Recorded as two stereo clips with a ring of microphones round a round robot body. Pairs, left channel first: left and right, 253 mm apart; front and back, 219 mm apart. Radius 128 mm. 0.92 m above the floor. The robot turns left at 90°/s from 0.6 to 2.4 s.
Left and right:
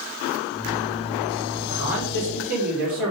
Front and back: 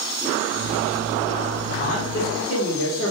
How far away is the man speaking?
About 3 m.